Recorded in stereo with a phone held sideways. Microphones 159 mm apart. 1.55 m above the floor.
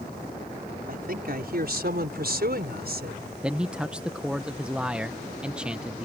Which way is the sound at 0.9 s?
65° right (ahead or behind).